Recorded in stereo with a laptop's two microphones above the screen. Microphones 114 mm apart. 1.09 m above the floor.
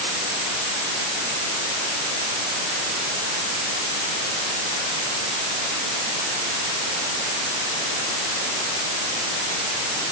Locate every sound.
Only background noise.